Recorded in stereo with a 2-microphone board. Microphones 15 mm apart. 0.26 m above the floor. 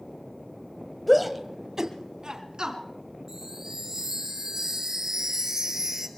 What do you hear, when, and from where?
1.1 s a shout: 5° left (ahead or behind), 1.1 m; by 2.8 s 50° right (ahead or behind), 3 m
3.3 s a chime: 30° right (ahead or behind), 1.8 m